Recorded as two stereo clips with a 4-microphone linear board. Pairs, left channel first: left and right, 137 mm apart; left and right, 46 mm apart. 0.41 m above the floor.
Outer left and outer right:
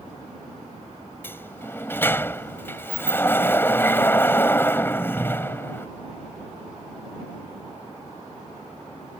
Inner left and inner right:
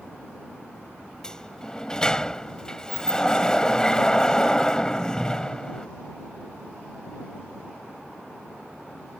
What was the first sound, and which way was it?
A sliding door, 15° left (ahead or behind).